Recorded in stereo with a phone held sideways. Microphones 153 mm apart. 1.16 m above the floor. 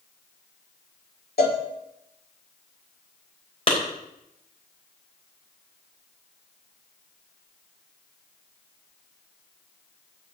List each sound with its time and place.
1.4 s a cowbell: 85° left, 2.5 m
3.7 s a clap: 35° left (ahead or behind), 4 m